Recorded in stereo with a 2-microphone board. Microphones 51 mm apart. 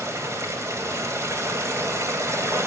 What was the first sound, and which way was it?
Running water, 65° right (ahead or behind).